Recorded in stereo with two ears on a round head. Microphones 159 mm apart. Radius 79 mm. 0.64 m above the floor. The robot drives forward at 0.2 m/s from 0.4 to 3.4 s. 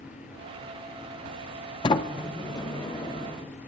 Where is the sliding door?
25° left (ahead or behind), 0.5 m; by 3.7 s 20° left (ahead or behind), 0.7 m.